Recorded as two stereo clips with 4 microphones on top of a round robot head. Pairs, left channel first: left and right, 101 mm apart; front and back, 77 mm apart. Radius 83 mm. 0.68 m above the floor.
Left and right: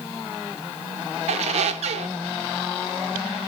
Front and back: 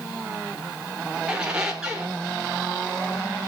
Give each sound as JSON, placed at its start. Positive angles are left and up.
{"t": 1.3, "sound": "a squeak", "azimuth_deg": -100, "distance_m": 1.1}